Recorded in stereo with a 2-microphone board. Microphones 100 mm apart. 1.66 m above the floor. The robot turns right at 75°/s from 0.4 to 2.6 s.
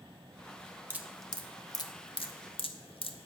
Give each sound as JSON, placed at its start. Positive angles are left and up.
{"t": 0.9, "sound": "dripping", "side_deg": -20, "distance_m": 0.7}